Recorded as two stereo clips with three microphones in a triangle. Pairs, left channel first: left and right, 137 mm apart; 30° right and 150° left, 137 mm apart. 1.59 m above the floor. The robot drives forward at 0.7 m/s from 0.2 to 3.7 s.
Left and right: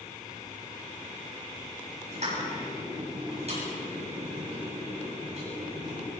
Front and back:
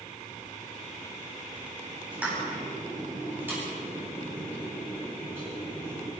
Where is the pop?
130° right, 9.5 m; by 6.1 s 135° right, 10 m.